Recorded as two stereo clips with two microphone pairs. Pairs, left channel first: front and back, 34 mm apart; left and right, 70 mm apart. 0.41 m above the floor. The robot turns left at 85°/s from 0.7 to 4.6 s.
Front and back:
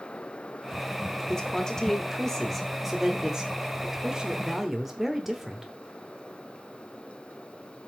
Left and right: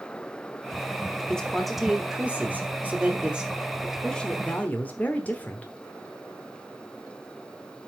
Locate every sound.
1.3 s a man speaking: 30° left, 1.2 m; by 5.7 s 110° left, 1.2 m